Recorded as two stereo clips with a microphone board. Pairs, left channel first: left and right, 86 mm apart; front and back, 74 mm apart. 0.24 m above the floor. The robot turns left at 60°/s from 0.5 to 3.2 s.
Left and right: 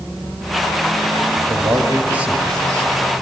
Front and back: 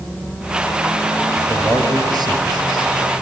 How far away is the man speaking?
About 4 m.